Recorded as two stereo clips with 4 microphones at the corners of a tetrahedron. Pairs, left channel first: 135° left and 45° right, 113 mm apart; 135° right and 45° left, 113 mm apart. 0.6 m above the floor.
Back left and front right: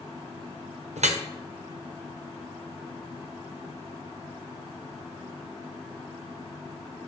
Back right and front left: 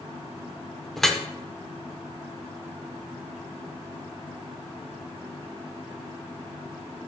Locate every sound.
1.0 s dripping: 50° right, 0.6 m